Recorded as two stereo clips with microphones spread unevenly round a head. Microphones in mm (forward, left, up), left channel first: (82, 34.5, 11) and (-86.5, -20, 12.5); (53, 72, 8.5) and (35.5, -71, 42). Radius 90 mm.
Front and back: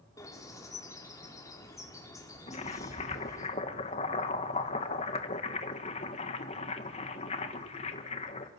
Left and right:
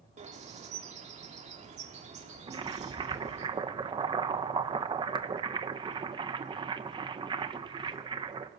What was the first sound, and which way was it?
A bird, 55° right.